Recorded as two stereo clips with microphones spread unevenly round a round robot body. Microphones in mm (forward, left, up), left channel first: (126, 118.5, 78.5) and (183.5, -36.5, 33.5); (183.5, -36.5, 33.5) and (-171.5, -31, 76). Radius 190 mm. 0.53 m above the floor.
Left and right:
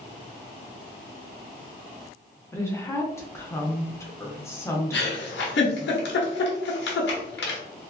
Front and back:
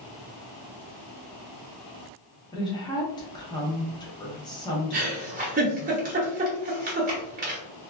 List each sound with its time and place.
2.5 s a woman speaking: 15° left, 0.6 m
4.9 s a giggle: 110° left, 0.8 m